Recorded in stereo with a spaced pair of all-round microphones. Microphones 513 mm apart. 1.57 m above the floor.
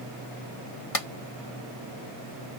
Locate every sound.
0.9 s a clap: 75° left (ahead or behind)